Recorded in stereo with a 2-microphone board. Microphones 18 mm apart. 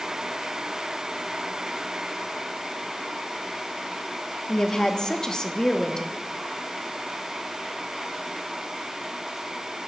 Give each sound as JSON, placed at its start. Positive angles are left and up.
{"t": 4.5, "sound": "a woman speaking", "side_deg": 40, "distance_m": 0.7}